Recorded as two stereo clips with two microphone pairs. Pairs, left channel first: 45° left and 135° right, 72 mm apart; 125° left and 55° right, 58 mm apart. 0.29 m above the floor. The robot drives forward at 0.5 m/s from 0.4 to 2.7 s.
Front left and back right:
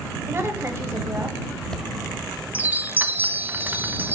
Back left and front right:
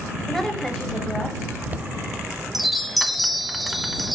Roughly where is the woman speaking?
Behind right.